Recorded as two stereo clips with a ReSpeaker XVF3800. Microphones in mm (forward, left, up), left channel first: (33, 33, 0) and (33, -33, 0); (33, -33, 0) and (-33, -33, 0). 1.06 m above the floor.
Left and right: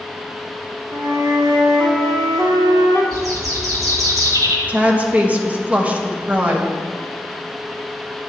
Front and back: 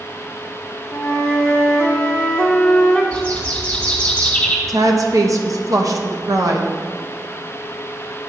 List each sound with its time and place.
0.9 s a flute: 75° right, 1.6 m
3.1 s a bird: 75° right, 2.5 m
4.7 s a woman speaking: 155° right, 1.0 m